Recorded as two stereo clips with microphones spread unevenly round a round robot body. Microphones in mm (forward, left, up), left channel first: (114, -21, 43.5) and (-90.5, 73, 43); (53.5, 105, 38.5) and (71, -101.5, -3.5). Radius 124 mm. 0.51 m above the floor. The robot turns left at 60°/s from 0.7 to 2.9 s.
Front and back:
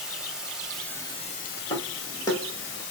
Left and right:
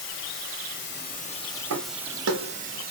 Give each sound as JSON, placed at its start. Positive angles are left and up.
{"t": 0.0, "sound": "running water", "azimuth_deg": 70, "distance_m": 1.1}
{"t": 1.7, "sound": "footsteps", "azimuth_deg": -95, "distance_m": 0.9}